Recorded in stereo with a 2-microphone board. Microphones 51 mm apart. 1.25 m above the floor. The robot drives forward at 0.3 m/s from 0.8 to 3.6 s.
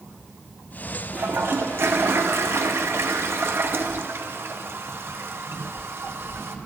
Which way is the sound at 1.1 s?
45° right (ahead or behind).